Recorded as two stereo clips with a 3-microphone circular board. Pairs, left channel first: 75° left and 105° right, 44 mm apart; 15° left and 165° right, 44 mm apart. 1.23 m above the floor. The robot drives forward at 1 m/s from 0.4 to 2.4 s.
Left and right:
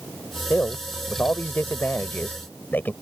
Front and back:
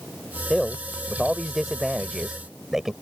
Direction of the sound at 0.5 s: 95° left.